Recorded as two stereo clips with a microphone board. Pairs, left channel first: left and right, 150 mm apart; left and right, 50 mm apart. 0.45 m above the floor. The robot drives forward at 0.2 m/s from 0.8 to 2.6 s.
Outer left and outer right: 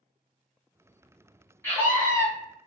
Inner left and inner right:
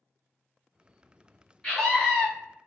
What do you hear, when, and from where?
1.6 s a scream: 15° left (ahead or behind), 1.6 m